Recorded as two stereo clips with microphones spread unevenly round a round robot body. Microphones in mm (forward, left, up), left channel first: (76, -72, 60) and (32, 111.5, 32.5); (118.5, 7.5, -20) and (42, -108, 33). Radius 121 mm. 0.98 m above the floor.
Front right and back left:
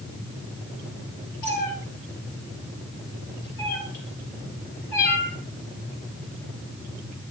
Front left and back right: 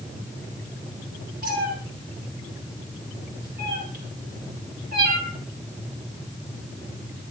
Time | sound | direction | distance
1.4 | a cat meowing | 120° right | 7 m